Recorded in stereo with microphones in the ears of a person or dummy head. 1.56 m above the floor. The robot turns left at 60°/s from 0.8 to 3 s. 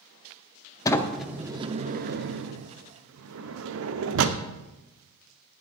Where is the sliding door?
20° left (ahead or behind), 0.7 m; by 4.4 s 70° right (ahead or behind), 0.7 m.